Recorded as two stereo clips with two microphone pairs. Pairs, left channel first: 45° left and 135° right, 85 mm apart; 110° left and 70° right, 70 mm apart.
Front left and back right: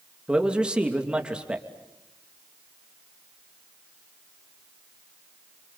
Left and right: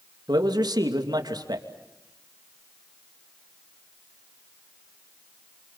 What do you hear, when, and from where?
0.3 s a man speaking: 55° right, 3 m